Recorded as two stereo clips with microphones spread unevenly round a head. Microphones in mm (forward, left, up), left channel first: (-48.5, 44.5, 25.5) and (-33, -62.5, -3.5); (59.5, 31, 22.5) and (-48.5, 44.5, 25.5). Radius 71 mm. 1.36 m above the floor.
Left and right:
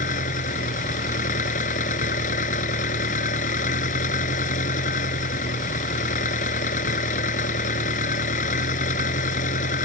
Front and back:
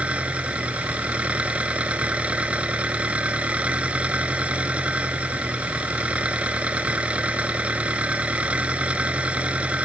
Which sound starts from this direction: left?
An engine running, at 0.0 s.